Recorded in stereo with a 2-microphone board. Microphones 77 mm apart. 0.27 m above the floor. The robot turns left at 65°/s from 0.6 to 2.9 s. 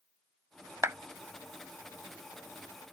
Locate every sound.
0.8 s a clap: 40° right (ahead or behind); by 1.0 s 35° right (ahead or behind)